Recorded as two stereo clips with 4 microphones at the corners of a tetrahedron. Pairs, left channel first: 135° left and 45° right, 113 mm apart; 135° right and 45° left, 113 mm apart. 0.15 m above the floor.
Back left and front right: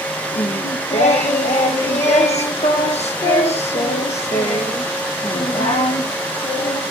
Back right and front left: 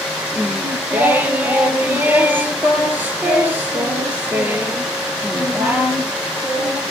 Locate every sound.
0.3 s singing: 120° left, 1.4 m